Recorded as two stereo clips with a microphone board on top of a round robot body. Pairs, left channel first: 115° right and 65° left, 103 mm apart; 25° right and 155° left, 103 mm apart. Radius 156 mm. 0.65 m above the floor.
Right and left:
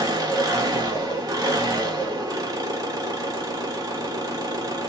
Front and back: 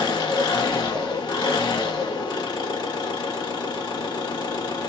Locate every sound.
0.0 s an engine running: 20° left, 1.2 m